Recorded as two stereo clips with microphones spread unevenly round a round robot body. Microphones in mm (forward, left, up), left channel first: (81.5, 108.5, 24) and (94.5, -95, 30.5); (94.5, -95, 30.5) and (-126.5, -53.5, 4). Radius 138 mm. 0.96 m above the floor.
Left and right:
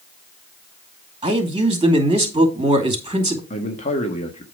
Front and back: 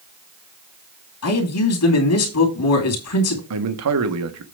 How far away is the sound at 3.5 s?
About 1.4 m.